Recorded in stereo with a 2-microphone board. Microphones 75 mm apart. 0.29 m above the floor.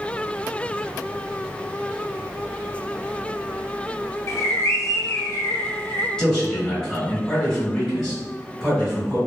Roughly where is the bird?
Left.